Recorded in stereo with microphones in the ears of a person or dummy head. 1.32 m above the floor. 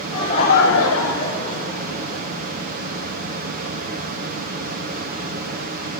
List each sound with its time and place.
0.1 s laughter: 20° left (ahead or behind), 1.1 m; by 2.2 s 30° left (ahead or behind), 2.5 m